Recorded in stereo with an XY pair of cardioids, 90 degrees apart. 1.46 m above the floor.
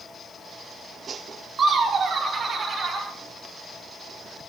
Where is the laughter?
50° right, 1.5 m; by 3.1 s 45° right, 3.5 m.